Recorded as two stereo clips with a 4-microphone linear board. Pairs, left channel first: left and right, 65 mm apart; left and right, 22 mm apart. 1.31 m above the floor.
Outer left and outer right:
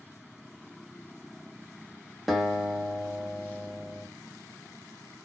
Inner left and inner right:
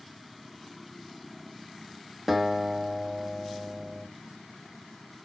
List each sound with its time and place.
2.3 s a guitar: centre (ahead or behind), 0.8 m